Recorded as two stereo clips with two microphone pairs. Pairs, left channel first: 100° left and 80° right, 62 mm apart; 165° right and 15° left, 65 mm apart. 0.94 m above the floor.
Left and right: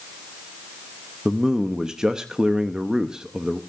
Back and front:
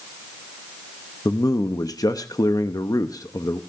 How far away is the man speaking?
About 0.8 m.